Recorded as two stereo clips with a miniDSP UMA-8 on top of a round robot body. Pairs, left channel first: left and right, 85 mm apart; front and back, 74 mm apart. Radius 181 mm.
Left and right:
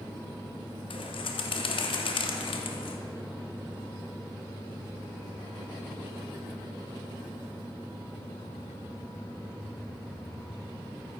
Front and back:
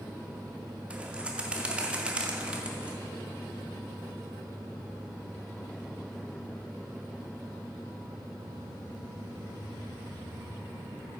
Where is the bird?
105° left, 0.6 m.